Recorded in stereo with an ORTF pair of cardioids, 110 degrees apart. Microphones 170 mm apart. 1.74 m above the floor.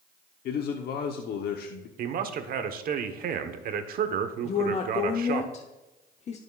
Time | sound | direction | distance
0.5 | a man speaking | 65° left | 1.0 m
2.0 | a man speaking | 55° right | 1.1 m
4.4 | a woman speaking | 40° left | 0.9 m